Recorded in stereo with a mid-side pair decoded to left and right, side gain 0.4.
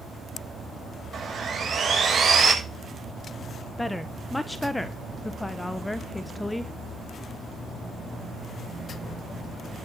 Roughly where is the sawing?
Ahead right.